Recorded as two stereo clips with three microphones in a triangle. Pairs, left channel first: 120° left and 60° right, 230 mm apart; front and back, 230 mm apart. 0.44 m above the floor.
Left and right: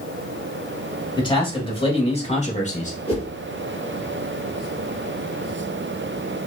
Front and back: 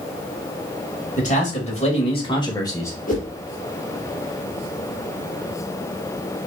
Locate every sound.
1.2 s a man speaking: 55° left, 2 m; by 3.0 s 75° left, 1.4 m
3.1 s a whoosh: 55° left, 2.5 m